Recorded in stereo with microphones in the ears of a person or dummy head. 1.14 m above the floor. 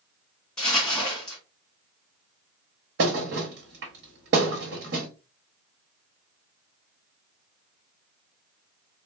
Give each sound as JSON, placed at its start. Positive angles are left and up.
{"t": 0.6, "sound": "crumpling", "side_deg": 5, "distance_m": 1.4}
{"t": 3.0, "sound": "a thud", "side_deg": -60, "distance_m": 1.2}